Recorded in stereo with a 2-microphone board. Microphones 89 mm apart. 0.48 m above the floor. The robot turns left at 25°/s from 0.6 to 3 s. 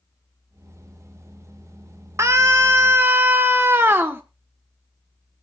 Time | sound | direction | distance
2.2 | a scream | 35° right (ahead or behind) | 1.3 m